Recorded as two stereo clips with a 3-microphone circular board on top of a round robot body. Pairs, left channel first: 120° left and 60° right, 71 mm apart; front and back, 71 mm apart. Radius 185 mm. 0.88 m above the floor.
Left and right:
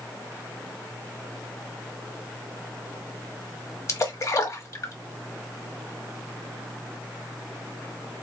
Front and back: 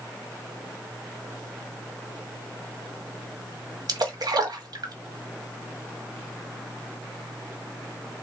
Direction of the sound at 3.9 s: 165° left.